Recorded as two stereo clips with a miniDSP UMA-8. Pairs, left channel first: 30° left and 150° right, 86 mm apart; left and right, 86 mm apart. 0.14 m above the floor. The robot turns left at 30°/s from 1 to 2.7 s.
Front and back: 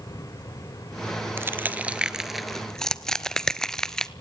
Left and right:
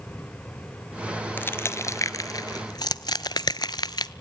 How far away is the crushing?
About 0.7 m.